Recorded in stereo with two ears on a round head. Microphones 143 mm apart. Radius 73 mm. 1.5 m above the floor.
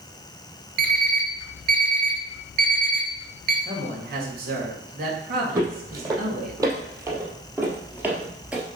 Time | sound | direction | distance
0.8 | an alarm clock | 60° right (ahead or behind) | 1.9 m
3.6 | a man speaking | 65° right (ahead or behind) | 3 m
5.5 | footsteps | 25° right (ahead or behind) | 3 m